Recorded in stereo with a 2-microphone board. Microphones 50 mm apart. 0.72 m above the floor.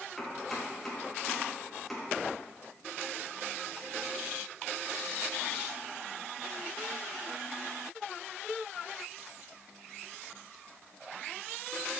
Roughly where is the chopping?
Centre.